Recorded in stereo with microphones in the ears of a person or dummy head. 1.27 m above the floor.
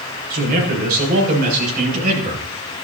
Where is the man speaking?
55° right (ahead or behind), 6.5 m; by 2.5 s 50° right (ahead or behind), 7.5 m.